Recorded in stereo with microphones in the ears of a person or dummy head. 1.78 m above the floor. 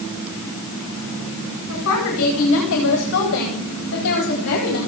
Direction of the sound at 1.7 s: 75° left (ahead or behind).